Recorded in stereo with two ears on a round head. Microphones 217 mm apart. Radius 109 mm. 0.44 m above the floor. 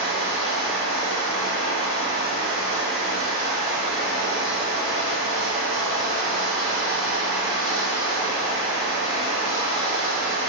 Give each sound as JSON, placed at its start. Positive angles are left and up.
{"t": 0.0, "sound": "running water", "side_deg": 75, "distance_m": 1.9}